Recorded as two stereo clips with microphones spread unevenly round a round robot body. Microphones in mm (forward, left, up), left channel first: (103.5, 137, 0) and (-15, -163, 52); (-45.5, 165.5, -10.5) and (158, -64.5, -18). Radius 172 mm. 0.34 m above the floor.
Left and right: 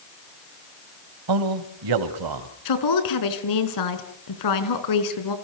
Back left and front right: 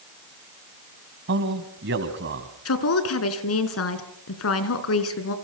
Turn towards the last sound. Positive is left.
turn(degrees=90)